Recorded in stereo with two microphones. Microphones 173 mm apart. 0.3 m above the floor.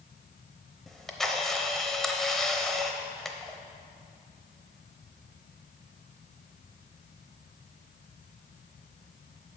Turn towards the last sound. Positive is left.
turn(degrees=0)  # may be behind; listen again after turning